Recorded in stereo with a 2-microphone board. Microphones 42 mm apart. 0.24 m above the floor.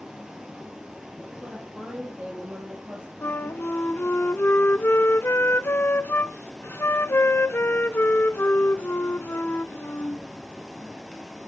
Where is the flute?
60° left (ahead or behind), 0.5 m.